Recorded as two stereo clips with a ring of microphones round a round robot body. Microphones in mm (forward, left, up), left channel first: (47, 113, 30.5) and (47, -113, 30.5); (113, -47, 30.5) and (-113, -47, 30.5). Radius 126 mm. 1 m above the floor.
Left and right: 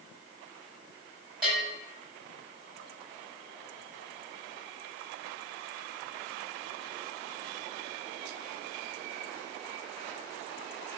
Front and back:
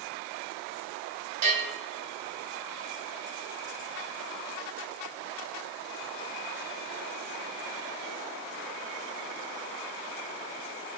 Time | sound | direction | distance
1.4 | a bell | 175° right | 6.5 m